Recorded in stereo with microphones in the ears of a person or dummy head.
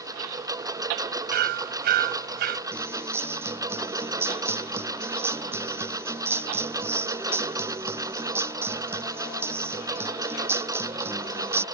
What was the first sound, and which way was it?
A lawn mower, 20° right (ahead or behind).